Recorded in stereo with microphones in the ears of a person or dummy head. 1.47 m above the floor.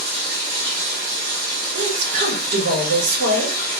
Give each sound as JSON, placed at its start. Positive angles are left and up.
{"t": 0.0, "sound": "running water", "side_deg": -45, "distance_m": 1.4}
{"t": 1.8, "sound": "a woman speaking", "side_deg": -65, "distance_m": 2.0}